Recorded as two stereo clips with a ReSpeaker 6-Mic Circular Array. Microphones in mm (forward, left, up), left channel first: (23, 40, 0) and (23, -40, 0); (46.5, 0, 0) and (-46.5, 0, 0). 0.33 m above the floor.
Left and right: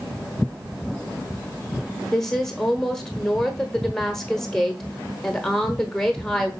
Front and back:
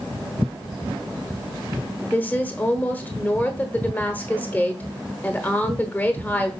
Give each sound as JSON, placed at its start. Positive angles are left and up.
{"t": 2.1, "sound": "a woman speaking", "azimuth_deg": 20, "distance_m": 1.0}